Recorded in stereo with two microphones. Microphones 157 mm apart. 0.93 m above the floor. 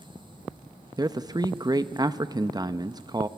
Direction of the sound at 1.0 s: 25° right (ahead or behind).